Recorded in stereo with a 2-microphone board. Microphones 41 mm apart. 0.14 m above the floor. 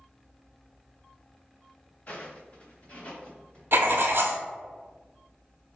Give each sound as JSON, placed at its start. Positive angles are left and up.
{"t": 2.1, "sound": "footsteps", "side_deg": 35, "distance_m": 1.2}
{"t": 3.7, "sound": "writing", "side_deg": -65, "distance_m": 0.6}